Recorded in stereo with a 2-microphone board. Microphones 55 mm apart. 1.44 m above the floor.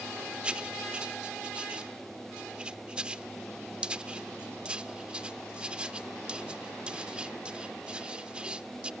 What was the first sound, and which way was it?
Writing, 20° right (ahead or behind).